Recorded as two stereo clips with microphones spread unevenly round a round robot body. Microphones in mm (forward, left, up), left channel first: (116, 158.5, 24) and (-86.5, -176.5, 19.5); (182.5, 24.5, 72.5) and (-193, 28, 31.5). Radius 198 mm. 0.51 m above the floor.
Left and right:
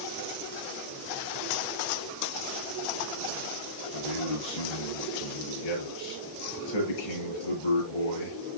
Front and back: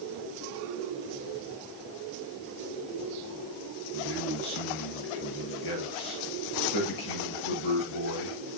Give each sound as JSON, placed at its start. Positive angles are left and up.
{"t": 3.9, "sound": "a man speaking", "azimuth_deg": 40, "distance_m": 9.5}